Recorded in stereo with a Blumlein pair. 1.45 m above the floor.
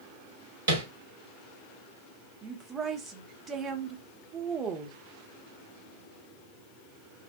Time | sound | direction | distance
0.7 | tapping | 65° right | 1.4 m
2.4 | a woman speaking | 20° right | 0.6 m